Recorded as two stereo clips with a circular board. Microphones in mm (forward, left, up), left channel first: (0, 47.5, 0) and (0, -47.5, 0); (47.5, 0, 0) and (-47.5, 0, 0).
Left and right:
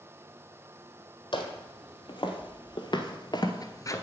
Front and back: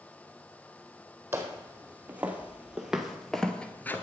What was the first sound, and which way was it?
Footsteps, 115° left.